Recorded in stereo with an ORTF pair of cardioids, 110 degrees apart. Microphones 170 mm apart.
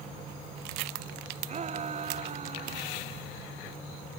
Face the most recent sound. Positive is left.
turn(degrees=-35)